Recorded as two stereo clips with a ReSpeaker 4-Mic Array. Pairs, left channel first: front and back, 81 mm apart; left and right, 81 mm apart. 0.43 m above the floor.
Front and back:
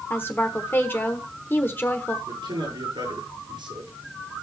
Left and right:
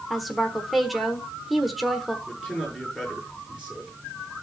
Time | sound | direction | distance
0.1 | a woman speaking | 5° right | 1.1 m
2.3 | a man speaking | 170° right | 6 m